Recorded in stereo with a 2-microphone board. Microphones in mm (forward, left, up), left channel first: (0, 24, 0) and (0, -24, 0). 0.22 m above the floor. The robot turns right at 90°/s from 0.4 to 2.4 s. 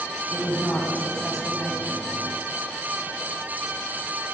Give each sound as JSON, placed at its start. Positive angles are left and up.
{"t": 0.3, "sound": "a woman speaking", "azimuth_deg": 80, "distance_m": 1.6}